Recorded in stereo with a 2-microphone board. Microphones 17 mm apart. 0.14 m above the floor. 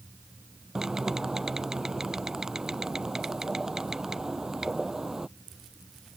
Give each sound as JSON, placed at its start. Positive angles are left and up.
{"t": 0.8, "sound": "typing on a keyboard", "side_deg": -30}